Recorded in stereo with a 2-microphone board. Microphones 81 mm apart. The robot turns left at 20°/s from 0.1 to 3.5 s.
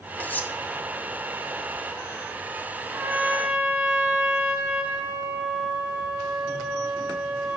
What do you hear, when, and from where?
0.2 s cutlery clinking: 20° left (ahead or behind), 0.6 m
2.9 s a trumpet: 25° right (ahead or behind), 1.4 m; by 7.6 s 20° right (ahead or behind), 1.4 m